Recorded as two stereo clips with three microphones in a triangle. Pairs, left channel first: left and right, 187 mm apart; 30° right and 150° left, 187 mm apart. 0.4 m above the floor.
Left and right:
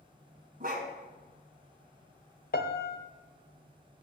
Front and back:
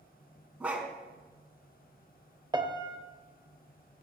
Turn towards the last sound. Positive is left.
turn(degrees=90)